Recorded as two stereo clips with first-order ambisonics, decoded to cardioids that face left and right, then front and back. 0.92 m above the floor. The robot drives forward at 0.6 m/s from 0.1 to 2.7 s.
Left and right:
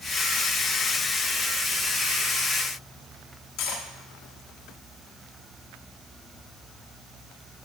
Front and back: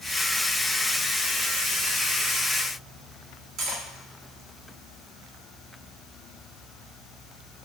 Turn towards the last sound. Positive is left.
turn(degrees=125)